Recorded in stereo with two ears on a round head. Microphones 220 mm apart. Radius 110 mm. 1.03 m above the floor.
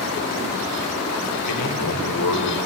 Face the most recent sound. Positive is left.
turn(degrees=80)